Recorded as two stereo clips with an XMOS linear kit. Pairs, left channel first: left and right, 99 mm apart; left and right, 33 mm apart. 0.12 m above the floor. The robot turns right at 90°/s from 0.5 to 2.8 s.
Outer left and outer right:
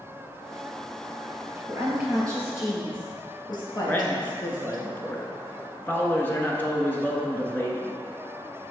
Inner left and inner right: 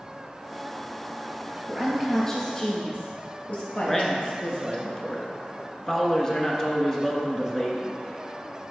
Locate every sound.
1.7 s a woman speaking: 35° right (ahead or behind), 2 m; by 4.8 s 45° left (ahead or behind), 2 m
3.9 s a man speaking: 20° left (ahead or behind), 1.3 m